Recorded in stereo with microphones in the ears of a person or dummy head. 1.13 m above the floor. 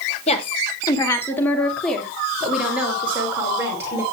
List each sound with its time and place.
0.3 s a woman speaking: 35° left (ahead or behind), 1.5 m; by 4.0 s 15° right (ahead or behind), 3.5 m